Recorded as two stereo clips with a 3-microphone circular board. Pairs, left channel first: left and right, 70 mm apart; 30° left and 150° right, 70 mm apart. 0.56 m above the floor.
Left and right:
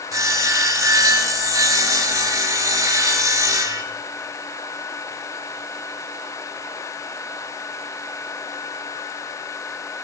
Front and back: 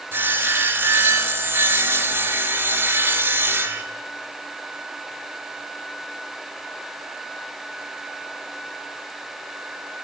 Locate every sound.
0.1 s sawing: 100° right, 0.5 m